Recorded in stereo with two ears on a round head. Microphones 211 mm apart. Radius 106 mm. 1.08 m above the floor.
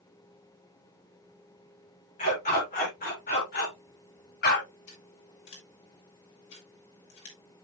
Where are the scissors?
65° left (ahead or behind), 5 m.